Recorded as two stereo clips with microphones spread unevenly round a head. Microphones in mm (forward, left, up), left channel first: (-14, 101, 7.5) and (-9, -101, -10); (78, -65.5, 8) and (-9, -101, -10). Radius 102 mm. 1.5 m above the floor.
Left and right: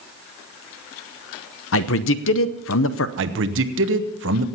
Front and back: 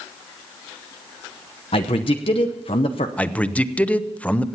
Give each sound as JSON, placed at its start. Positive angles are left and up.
{"t": 1.7, "sound": "a man speaking", "azimuth_deg": 65, "distance_m": 0.7}
{"t": 3.2, "sound": "a man speaking", "azimuth_deg": -55, "distance_m": 0.9}